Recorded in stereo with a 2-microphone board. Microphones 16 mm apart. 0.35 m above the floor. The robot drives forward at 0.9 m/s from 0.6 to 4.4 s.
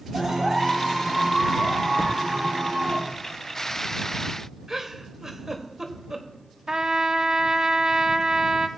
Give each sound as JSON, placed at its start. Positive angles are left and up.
{"t": 0.1, "sound": "a clap", "side_deg": -55, "distance_m": 5.5}
{"t": 2.0, "sound": "a thud", "side_deg": 80, "distance_m": 1.2}
{"t": 4.7, "sound": "a giggle", "side_deg": -35, "distance_m": 1.5}
{"t": 6.7, "sound": "a trumpet", "side_deg": -45, "distance_m": 0.6}